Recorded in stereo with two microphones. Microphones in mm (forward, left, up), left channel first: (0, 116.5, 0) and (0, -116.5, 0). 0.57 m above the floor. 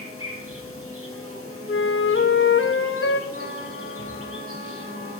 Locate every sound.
0.0 s an insect: 70° right (ahead or behind), 2.5 m
1.7 s a flute: 60° left (ahead or behind), 0.9 m
3.3 s a trumpet: 45° right (ahead or behind), 3 m